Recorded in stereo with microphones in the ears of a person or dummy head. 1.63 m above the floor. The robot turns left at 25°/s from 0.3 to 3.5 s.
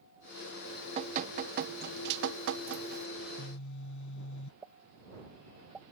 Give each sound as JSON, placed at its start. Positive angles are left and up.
{"t": 0.7, "sound": "dripping", "azimuth_deg": -25}
{"t": 3.2, "sound": "a phone buzzing", "side_deg": 55}
{"t": 4.6, "sound": "a pop", "side_deg": -5}